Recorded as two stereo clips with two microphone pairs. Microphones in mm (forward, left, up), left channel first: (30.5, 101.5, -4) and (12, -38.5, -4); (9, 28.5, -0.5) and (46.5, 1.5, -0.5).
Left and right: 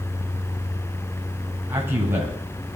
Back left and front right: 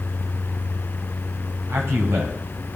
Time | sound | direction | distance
1.7 | a man speaking | 25° right | 9.5 m